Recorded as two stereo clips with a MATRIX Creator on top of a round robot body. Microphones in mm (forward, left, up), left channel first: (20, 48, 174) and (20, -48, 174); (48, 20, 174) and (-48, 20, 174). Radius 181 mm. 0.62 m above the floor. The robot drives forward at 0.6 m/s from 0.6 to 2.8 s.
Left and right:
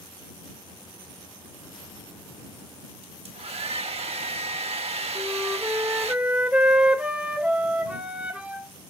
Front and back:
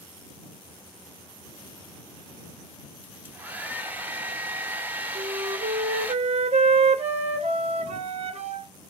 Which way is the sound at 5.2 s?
170° right.